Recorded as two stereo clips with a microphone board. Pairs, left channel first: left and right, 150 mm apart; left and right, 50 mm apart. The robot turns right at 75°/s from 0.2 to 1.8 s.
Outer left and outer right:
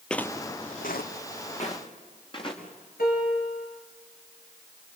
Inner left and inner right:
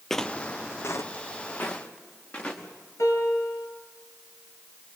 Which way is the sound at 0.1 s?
5° left (ahead or behind).